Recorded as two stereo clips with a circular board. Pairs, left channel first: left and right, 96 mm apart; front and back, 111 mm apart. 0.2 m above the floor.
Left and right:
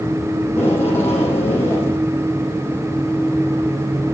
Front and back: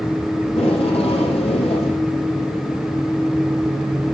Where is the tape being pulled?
25° left, 8.5 m.